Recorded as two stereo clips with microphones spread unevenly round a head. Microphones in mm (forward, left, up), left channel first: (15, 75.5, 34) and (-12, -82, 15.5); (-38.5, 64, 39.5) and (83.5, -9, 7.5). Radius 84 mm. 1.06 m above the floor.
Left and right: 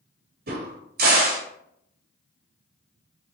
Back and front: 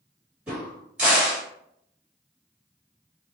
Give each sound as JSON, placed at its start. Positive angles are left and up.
{"t": 0.5, "sound": "a crack", "azimuth_deg": -105, "distance_m": 1.4}